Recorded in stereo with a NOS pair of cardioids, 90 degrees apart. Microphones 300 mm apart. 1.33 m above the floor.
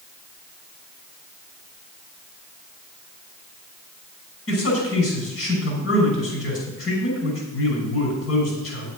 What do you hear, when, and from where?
4.5 s a man speaking: 50° left, 5.5 m